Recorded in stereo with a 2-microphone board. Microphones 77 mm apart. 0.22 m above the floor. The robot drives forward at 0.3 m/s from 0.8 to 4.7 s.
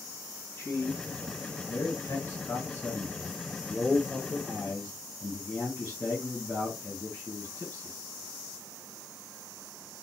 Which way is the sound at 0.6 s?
35° left (ahead or behind).